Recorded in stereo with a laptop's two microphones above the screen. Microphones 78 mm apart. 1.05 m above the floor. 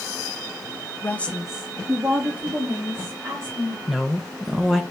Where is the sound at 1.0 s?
25° left (ahead or behind), 0.5 m; by 3.8 s 50° right (ahead or behind), 1.7 m.